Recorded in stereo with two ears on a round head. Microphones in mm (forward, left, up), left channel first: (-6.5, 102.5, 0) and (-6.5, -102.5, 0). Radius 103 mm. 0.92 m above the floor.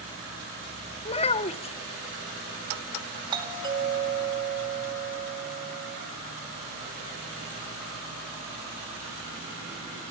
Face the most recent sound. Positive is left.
turn(degrees=-20)  # may be behind; listen again after turning